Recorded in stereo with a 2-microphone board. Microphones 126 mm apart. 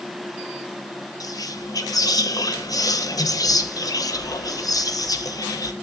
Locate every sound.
1.2 s whispering: 30° left (ahead or behind), 0.8 m